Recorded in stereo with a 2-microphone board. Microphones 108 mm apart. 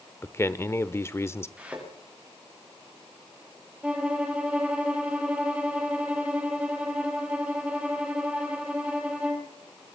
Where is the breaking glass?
No breaking glass in this recording.